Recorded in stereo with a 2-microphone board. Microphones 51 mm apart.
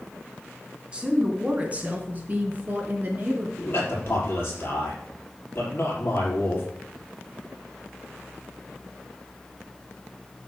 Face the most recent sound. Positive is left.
turn(degrees=50)  # may be behind; listen again after turning